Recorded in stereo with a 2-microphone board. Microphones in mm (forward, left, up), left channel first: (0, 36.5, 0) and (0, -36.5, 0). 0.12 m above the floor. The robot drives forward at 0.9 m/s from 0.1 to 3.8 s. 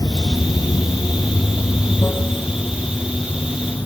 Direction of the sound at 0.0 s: 55° left (ahead or behind).